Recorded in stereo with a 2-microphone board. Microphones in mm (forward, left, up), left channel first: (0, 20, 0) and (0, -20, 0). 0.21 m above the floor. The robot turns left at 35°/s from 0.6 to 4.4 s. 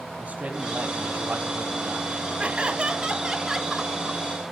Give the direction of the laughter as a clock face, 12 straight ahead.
4 o'clock.